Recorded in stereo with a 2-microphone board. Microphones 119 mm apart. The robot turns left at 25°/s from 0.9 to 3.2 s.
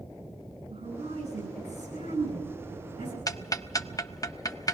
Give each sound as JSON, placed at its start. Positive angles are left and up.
{"t": 0.7, "sound": "a woman speaking", "azimuth_deg": -55, "distance_m": 9.5}
{"t": 3.3, "sound": "ticking", "side_deg": 30, "distance_m": 0.5}